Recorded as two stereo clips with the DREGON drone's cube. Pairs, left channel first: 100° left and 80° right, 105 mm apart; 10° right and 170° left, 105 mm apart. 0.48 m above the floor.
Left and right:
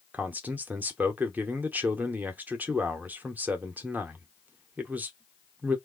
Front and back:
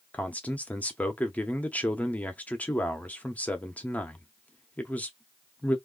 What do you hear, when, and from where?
0.1 s a man speaking: 55° right, 0.7 m